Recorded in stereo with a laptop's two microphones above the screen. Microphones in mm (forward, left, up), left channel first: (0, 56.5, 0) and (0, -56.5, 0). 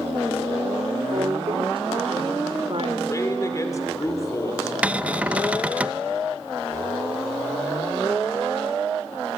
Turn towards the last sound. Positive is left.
turn(degrees=-15)  # may be behind; listen again after turning